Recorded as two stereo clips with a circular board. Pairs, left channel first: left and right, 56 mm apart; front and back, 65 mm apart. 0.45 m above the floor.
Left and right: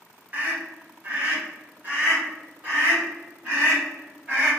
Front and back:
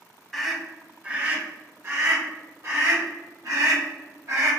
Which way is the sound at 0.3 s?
75° right.